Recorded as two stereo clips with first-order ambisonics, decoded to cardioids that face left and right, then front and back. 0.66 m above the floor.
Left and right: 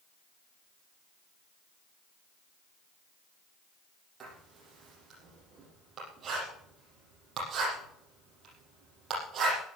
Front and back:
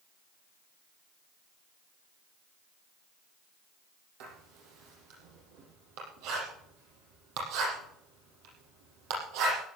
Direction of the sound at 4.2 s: 160° right.